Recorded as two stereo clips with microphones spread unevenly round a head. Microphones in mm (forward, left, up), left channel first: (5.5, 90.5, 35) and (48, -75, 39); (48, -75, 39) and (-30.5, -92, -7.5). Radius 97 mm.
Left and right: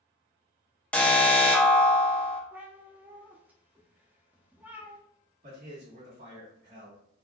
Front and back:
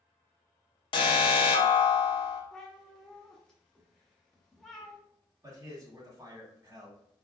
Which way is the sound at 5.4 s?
115° right.